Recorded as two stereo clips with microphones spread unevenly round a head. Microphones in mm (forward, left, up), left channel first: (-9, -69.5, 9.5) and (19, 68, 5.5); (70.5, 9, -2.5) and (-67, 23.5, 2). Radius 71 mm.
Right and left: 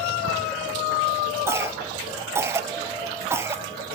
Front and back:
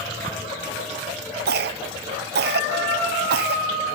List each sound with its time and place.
1.5 s a cough: 155° left, 0.6 m